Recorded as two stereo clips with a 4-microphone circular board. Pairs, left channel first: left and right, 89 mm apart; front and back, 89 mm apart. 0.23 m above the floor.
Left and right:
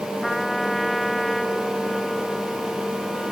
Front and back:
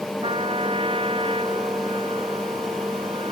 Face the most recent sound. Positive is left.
turn(degrees=180)